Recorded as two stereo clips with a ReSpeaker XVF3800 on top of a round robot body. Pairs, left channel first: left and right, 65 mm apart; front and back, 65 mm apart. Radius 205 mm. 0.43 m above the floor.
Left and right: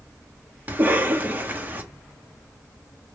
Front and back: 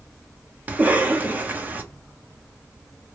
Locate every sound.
0.7 s a cough: 130° right, 1.4 m